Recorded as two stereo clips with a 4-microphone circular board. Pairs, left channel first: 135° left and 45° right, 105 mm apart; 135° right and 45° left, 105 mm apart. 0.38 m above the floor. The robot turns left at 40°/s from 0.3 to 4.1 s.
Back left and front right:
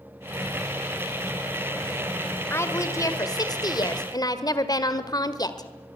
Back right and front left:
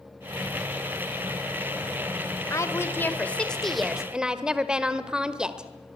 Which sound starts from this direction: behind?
A woman speaking, at 2.5 s.